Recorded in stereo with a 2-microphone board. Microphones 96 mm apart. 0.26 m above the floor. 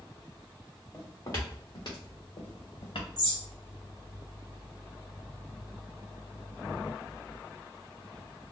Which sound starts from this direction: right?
A bird, at 3.2 s.